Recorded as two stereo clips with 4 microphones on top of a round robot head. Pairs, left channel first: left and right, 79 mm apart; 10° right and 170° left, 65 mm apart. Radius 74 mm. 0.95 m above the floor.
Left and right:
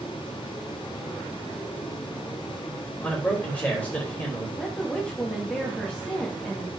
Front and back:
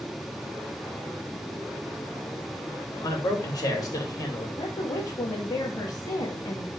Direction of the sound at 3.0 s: 15° left.